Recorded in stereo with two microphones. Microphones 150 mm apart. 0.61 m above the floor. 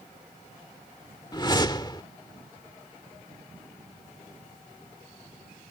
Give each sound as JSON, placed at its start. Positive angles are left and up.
{"t": 1.3, "sound": "a whoosh", "side_deg": 30}